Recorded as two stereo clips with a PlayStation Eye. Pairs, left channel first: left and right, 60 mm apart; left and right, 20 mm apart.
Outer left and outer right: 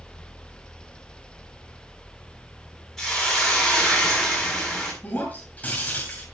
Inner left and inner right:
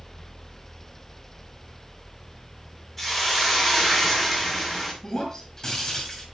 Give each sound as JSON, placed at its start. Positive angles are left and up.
{"t": 3.0, "sound": "a hiss", "side_deg": 5, "distance_m": 7.0}
{"t": 5.0, "sound": "breaking glass", "side_deg": 25, "distance_m": 5.0}